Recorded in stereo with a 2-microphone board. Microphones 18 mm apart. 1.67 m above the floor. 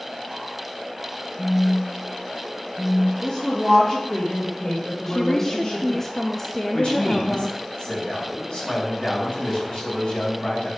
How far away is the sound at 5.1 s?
About 0.5 m.